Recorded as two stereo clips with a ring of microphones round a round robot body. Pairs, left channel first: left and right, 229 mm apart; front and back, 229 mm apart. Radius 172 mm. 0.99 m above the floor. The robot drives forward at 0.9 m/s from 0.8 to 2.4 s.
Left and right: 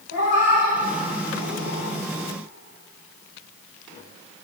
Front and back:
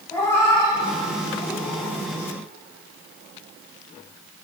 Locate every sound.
0.1 s a cat meowing: 80° left, 7 m; by 2.0 s 90° left, 7 m